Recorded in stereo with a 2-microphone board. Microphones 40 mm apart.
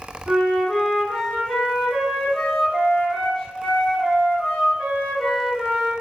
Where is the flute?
Centre (ahead or behind), 1.6 m.